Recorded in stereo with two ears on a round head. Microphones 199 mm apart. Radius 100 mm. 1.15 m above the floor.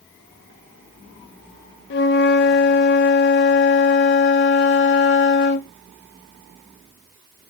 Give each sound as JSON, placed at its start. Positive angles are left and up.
{"t": 1.9, "sound": "a flute", "side_deg": 50, "distance_m": 0.5}